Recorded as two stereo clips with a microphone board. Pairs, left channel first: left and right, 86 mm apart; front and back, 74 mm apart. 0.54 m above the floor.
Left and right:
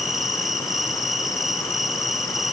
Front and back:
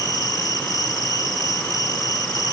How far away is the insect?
About 2.5 m.